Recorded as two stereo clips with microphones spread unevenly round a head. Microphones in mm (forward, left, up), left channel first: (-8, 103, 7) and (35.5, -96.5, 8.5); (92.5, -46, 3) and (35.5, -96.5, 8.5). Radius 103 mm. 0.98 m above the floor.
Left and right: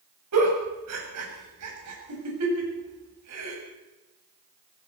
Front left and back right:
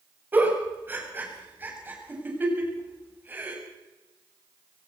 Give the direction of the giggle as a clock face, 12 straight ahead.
2 o'clock.